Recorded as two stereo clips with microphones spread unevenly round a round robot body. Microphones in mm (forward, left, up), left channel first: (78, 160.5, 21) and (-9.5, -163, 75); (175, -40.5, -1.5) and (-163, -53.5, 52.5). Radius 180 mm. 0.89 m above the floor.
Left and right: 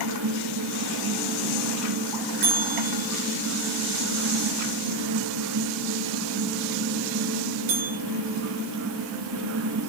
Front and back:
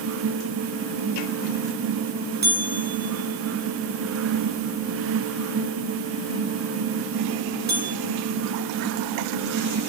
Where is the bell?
120° right, 3.5 m.